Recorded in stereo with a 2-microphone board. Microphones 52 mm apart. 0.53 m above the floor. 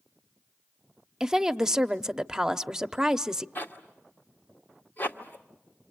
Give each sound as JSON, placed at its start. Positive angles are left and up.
{"t": 1.2, "sound": "a woman speaking", "side_deg": -10, "distance_m": 0.7}
{"t": 3.5, "sound": "a zipper", "side_deg": 40, "distance_m": 1.6}